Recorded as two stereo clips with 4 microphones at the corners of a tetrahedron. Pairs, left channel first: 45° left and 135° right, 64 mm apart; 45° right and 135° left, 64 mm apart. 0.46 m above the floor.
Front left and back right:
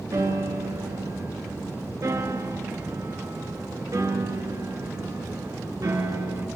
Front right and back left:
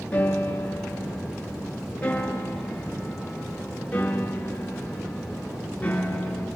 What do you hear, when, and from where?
0.1 s a piano: 115° right, 5 m